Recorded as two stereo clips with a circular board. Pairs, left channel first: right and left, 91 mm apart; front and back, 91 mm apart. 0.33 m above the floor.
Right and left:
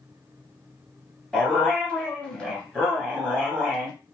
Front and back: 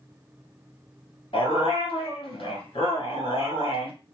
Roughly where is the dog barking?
Ahead.